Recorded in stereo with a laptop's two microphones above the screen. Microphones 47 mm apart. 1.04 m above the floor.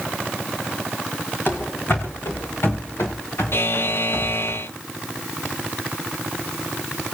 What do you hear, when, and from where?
1.5 s running footsteps: 50° left (ahead or behind), 3.5 m; by 4.5 s 80° left, 7 m
3.5 s a buzzer: 55° left (ahead or behind), 0.7 m